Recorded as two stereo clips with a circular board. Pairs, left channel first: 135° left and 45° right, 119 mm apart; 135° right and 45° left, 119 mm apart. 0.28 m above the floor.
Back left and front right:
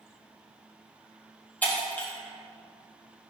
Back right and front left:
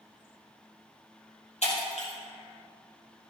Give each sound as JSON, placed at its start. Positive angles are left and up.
{"t": 1.6, "sound": "breaking glass", "azimuth_deg": -150, "distance_m": 4.0}